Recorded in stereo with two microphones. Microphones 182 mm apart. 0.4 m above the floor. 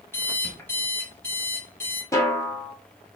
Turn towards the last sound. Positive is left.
turn(degrees=15)  # may be behind; listen again after turning